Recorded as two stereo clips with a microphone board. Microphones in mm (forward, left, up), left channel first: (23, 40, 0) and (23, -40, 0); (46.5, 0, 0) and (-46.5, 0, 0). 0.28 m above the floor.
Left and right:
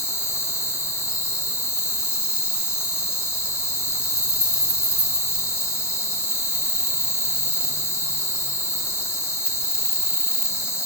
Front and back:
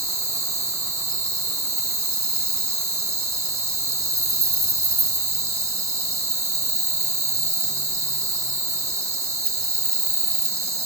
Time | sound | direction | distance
0.0 | an insect | 130° left | 1.0 m